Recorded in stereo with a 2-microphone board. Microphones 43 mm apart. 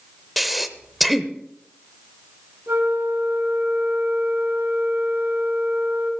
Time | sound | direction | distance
0.4 | breathing | centre (ahead or behind) | 0.8 m
2.7 | a flute | 70° right (ahead or behind) | 3 m